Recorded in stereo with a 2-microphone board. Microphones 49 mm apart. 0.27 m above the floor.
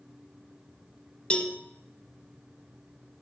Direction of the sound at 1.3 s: 25° left (ahead or behind).